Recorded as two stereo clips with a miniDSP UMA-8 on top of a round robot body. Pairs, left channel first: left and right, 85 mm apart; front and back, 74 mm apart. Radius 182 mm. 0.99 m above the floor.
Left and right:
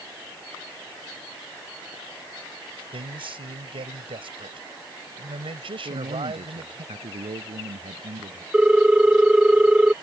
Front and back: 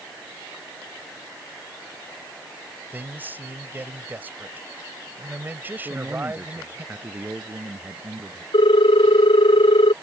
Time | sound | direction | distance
2.9 | a man speaking | 110° right | ?
5.8 | a man speaking | 110° right | ?
8.5 | a ringtone | 10° right | ?